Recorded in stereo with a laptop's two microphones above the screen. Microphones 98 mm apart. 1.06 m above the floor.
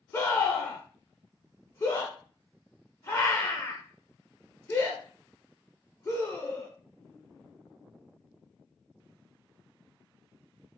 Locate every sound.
0.1 s a scream: 30° left (ahead or behind), 0.5 m